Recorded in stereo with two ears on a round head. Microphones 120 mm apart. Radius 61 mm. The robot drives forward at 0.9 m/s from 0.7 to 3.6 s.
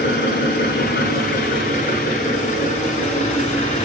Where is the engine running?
75° left (ahead or behind), 3.5 m; by 3.9 s 50° left (ahead or behind), 4.5 m.